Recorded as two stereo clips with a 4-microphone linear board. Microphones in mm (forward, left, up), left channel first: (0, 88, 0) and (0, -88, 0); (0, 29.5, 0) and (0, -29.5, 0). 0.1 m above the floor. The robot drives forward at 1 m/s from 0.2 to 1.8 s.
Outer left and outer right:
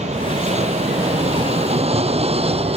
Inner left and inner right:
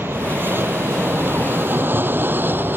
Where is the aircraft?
40° right (ahead or behind); by 2.8 s 35° right (ahead or behind).